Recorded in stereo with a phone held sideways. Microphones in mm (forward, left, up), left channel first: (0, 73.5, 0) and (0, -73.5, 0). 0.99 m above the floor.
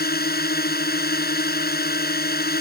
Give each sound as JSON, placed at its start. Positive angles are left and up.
{"t": 0.0, "sound": "a drone", "side_deg": 85}